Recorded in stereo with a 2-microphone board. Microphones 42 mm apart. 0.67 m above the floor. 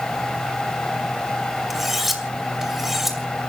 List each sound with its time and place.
1.7 s cutlery clinking: 5° right (ahead or behind), 2 m